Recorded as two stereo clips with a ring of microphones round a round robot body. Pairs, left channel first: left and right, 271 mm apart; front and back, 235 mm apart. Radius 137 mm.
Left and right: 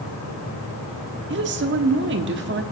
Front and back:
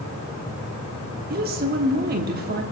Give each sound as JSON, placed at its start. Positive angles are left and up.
{"t": 1.3, "sound": "a woman speaking", "azimuth_deg": -130, "distance_m": 1.2}